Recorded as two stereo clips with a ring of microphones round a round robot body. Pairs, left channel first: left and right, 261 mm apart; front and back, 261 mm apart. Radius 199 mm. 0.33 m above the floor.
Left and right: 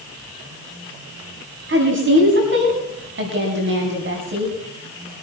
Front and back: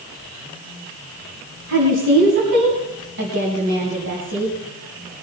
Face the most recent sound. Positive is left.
turn(degrees=-130)